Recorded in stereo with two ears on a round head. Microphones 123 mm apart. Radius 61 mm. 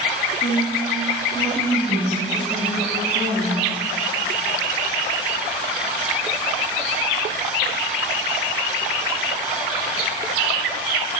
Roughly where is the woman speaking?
Left.